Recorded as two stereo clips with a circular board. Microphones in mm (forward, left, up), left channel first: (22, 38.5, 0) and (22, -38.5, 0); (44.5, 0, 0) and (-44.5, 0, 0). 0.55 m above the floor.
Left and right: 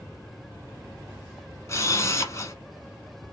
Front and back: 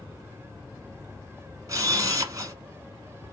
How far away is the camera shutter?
About 1.0 m.